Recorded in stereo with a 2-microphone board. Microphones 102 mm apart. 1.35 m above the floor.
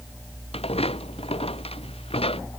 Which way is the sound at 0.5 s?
80° left.